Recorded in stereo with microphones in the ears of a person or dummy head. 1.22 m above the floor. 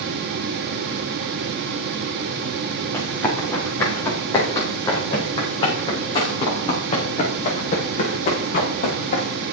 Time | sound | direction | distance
2.9 | running footsteps | 15° left (ahead or behind) | 5.5 m